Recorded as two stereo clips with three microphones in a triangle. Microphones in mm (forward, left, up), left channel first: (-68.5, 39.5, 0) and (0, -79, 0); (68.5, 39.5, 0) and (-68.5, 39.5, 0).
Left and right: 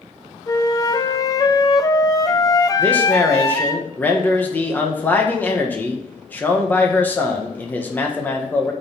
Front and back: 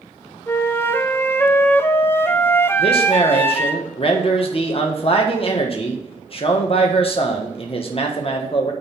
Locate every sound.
0.5 s a flute: 70° left, 0.7 m
2.8 s a man speaking: 45° left, 1.4 m